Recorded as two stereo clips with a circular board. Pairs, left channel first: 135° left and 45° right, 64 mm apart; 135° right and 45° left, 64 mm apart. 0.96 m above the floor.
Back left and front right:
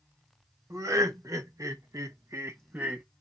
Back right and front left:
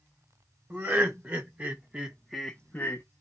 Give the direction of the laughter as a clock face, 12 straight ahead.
12 o'clock.